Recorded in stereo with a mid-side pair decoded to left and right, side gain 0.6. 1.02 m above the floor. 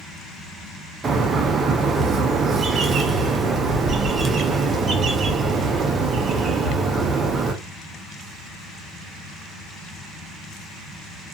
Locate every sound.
1.0 s a bird: 40° right, 0.6 m